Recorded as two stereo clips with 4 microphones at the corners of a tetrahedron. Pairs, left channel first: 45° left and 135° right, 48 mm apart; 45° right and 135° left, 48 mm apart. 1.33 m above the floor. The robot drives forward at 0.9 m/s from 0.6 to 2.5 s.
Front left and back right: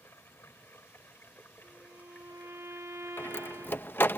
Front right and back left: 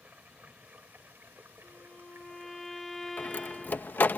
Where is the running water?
80° left; by 4.2 s 105° left.